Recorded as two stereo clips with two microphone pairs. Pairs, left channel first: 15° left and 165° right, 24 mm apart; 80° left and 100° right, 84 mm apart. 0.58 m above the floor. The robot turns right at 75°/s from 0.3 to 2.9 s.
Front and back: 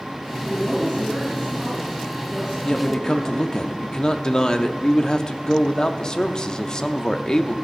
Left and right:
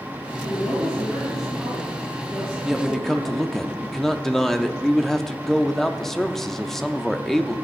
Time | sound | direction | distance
0.4 | a woman speaking | 100° left | 6 m
2.6 | a man speaking | 20° right | 0.6 m